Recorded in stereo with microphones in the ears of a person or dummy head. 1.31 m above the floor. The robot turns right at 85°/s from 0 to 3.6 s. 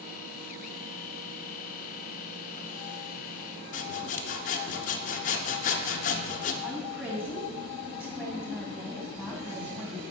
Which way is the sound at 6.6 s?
10° right (ahead or behind).